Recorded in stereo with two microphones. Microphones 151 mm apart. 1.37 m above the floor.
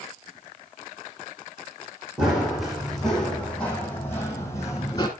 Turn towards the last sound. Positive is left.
turn(degrees=25)  # may be behind; listen again after turning